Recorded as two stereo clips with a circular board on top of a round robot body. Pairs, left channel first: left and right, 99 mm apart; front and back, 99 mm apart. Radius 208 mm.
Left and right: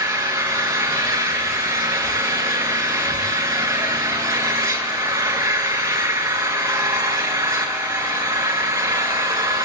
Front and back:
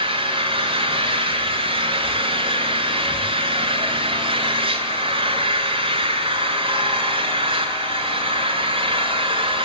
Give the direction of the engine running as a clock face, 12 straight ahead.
5 o'clock.